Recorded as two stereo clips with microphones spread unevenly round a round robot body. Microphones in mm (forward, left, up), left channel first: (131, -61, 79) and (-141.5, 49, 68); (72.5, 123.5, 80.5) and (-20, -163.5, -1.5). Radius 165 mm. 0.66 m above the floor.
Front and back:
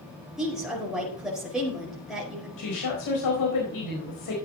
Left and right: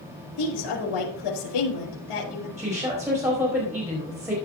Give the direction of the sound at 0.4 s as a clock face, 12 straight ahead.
10 o'clock.